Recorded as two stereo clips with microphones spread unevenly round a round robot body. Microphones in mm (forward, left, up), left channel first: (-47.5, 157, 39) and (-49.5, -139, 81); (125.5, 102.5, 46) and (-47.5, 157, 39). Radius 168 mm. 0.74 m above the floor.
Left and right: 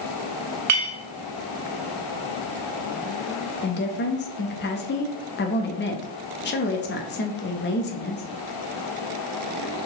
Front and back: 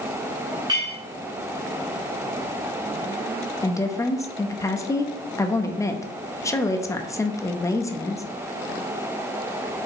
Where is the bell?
I don't hear a bell.